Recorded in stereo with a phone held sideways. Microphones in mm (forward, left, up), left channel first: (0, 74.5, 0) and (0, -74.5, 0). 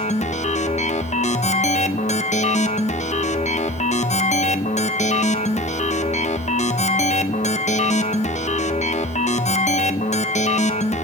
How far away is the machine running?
About 1.0 m.